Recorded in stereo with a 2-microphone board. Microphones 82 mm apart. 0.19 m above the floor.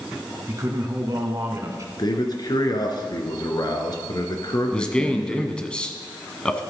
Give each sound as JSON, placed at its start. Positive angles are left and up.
{"t": 0.5, "sound": "a man speaking", "side_deg": -40, "distance_m": 2.0}
{"t": 2.0, "sound": "a man speaking", "side_deg": 55, "distance_m": 2.0}
{"t": 4.7, "sound": "a man speaking", "side_deg": 10, "distance_m": 1.2}